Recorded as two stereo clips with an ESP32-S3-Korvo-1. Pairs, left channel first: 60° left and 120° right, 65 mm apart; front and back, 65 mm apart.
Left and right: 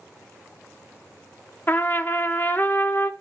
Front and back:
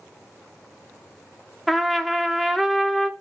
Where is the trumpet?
95° left, 0.6 m.